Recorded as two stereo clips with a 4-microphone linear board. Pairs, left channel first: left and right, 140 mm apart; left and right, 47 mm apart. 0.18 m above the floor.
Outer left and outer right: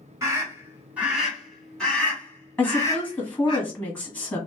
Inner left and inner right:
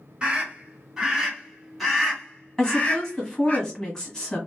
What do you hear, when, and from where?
0.2 s a scream: 20° right (ahead or behind), 1.8 m; by 3.6 s 35° left (ahead or behind), 1.8 m
2.6 s a woman speaking: 15° left (ahead or behind), 1.5 m